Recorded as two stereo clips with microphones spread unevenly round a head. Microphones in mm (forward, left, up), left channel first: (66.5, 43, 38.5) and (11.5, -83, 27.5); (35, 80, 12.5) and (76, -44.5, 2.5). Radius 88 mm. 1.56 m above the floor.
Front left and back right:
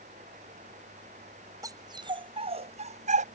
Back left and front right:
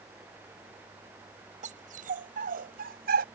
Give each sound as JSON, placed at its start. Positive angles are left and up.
{"t": 1.6, "sound": "a dog barking", "azimuth_deg": -50}